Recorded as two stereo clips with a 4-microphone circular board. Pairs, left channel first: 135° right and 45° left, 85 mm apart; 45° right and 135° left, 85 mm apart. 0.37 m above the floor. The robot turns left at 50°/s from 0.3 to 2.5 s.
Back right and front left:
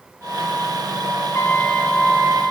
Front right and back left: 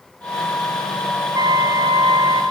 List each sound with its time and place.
1.3 s a trumpet: 165° left, 2.5 m; by 2.4 s 110° left, 2.5 m